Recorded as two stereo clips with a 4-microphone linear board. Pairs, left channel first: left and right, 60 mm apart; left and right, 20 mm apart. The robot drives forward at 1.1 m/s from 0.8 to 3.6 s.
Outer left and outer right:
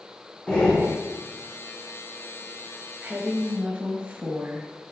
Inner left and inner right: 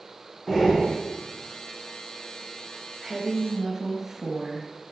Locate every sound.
0.5 s breathing: 15° left (ahead or behind), 2.5 m
3.0 s a woman speaking: 20° right (ahead or behind), 1.2 m